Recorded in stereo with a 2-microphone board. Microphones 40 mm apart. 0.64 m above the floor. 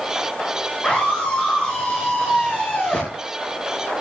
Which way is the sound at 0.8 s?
20° left (ahead or behind).